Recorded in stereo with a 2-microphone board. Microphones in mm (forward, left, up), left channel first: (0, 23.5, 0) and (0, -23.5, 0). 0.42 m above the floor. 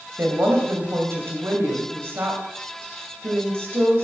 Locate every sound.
0.2 s a woman speaking: 60° right (ahead or behind), 2.5 m